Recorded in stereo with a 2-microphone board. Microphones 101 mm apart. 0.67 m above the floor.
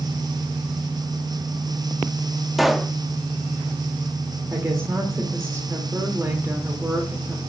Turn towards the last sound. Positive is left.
turn(degrees=-30)  # may be behind; listen again after turning